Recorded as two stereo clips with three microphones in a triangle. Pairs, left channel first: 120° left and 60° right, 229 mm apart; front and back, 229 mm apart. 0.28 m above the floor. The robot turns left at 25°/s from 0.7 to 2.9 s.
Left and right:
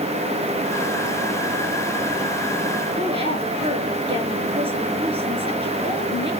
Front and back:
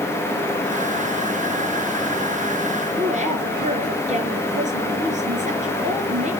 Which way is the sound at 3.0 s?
125° right.